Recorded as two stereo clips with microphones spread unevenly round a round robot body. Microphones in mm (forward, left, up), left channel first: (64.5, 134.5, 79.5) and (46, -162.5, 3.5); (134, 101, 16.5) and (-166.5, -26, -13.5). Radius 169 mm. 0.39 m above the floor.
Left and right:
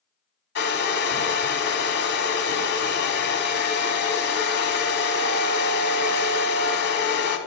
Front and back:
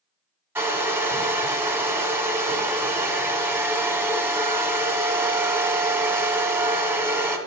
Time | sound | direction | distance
0.6 | a hair dryer | 135° left | 1.3 m